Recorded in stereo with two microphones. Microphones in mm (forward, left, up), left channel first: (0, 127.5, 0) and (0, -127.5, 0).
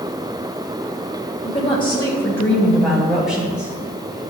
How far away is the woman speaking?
About 1.6 m.